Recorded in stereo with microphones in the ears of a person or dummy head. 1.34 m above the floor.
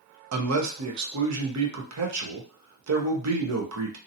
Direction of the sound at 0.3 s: 85° right.